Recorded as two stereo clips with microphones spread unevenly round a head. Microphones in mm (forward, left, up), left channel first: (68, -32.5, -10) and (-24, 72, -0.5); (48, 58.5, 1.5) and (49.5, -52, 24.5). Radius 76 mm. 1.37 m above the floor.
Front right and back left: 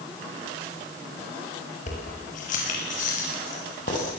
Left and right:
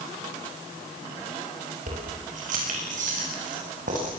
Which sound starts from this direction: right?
Keys jangling, at 1.9 s.